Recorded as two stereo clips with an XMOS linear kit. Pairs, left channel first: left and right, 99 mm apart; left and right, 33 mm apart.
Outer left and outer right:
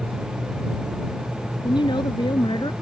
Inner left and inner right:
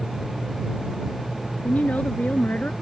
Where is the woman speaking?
50° left (ahead or behind); by 2.7 s 55° left (ahead or behind).